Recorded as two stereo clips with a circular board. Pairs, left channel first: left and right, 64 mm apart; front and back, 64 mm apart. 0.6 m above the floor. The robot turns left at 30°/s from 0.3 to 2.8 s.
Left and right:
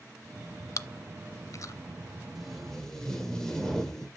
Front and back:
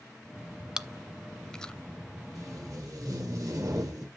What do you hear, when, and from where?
0.8 s chewing: 105° left, 0.5 m; by 1.7 s 75° left, 0.5 m
2.4 s tape being pulled: 175° right, 2.5 m; by 4.1 s 170° left, 2.5 m